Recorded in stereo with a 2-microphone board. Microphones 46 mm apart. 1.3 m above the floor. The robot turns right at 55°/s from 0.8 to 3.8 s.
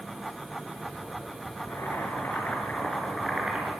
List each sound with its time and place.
1.6 s boiling: 90° left, 6 m; by 3.7 s 155° right, 6 m